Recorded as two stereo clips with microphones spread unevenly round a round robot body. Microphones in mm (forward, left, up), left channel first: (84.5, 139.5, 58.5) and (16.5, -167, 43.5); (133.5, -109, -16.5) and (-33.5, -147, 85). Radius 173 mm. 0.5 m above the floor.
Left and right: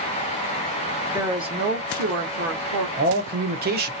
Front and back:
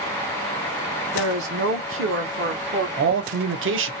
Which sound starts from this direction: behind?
A woman speaking, at 1.1 s.